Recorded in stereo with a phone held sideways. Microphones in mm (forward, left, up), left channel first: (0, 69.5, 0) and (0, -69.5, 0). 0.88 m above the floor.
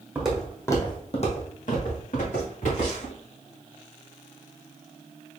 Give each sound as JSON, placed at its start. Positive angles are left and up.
{"t": 0.1, "sound": "footsteps", "side_deg": -10, "distance_m": 1.7}